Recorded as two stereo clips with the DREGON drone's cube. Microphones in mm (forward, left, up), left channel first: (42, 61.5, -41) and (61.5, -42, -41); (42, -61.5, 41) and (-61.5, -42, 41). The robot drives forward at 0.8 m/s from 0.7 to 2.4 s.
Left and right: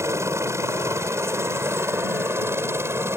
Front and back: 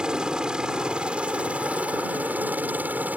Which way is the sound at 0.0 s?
115° right.